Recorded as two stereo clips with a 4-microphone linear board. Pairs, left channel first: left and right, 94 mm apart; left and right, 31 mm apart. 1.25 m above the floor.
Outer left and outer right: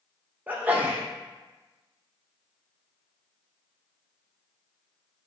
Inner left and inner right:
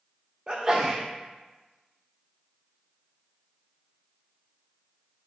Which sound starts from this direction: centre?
A sneeze, at 0.5 s.